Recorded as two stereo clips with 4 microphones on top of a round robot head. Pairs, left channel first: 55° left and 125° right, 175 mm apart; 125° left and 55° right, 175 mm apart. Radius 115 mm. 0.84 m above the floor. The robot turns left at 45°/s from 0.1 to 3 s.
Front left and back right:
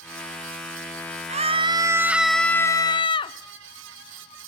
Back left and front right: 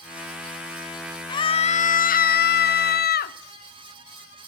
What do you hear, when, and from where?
1.3 s a scream: 170° right, 1.5 m; by 3.4 s 115° left, 1.5 m